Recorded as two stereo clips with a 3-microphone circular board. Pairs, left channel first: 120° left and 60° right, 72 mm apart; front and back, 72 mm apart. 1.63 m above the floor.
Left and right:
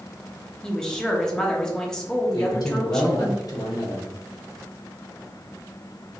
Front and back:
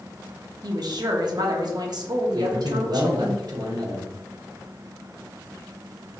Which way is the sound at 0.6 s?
155° right.